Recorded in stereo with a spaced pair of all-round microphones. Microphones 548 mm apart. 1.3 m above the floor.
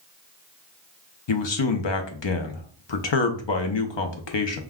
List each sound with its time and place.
1.3 s a man speaking: 55° left (ahead or behind), 0.6 m